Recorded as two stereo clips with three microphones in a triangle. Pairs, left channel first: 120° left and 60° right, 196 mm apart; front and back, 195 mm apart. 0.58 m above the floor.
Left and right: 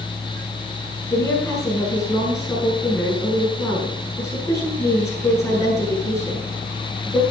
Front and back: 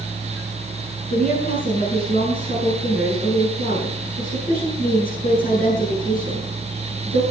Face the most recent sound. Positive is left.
turn(degrees=45)